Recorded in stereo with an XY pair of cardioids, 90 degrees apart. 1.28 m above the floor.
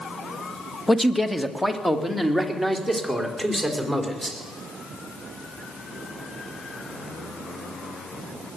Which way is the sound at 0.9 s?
10° left.